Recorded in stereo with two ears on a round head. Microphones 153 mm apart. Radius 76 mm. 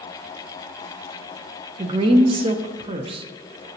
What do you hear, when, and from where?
1.8 s a woman speaking: 30° right (ahead or behind), 0.6 m